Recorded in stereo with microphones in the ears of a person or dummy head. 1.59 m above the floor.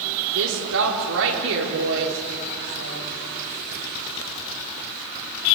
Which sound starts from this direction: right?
A woman speaking, at 0.3 s.